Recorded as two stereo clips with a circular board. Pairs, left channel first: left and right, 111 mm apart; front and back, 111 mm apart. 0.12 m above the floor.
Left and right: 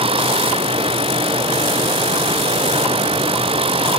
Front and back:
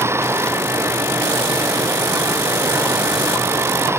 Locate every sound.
0.0 s running water: 115° right